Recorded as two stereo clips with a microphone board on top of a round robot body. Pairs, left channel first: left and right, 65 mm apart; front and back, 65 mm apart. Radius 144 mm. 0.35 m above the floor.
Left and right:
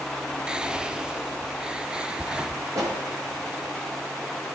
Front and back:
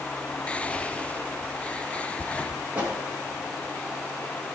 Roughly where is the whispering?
Ahead right.